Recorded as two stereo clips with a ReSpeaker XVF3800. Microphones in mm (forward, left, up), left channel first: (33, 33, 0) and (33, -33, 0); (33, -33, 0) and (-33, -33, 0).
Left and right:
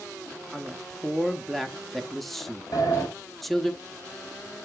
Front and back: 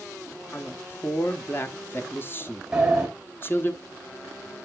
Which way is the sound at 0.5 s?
5° left.